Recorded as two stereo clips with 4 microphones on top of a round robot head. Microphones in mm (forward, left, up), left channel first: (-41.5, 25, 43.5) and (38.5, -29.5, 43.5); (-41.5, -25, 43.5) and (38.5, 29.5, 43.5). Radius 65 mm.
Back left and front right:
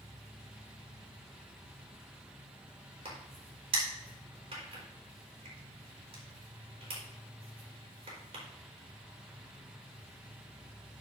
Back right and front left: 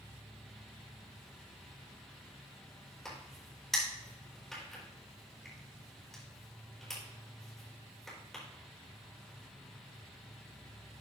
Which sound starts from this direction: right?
An insect, at 0.0 s.